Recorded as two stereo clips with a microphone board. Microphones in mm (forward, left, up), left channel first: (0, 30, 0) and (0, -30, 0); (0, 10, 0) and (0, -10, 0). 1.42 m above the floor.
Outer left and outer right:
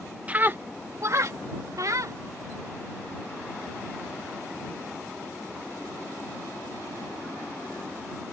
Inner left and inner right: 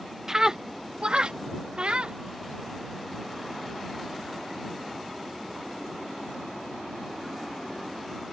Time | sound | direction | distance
0.3 | a scream | 20° right (ahead or behind) | ?